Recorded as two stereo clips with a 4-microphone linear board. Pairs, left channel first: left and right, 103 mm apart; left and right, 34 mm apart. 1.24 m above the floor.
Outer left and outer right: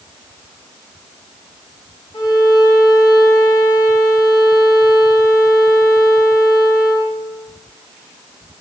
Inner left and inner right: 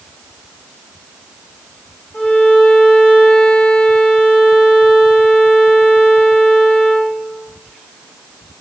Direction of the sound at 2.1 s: 50° left (ahead or behind).